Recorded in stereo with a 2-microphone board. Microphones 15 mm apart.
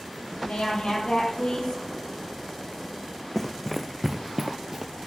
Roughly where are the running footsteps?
Left.